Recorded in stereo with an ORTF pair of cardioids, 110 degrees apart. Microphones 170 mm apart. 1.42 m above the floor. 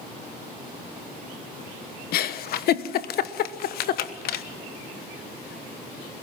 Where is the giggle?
60° left, 1.2 m.